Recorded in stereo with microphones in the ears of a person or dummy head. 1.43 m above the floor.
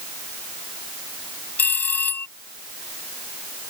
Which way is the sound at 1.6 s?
5° left (ahead or behind).